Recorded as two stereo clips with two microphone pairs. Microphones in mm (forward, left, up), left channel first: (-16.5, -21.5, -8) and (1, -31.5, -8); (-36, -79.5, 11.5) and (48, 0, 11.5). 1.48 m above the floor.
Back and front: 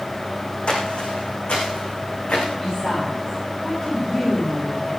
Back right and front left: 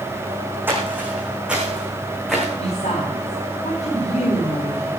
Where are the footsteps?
115° left, 5 m; by 2.5 s 130° left, 7 m.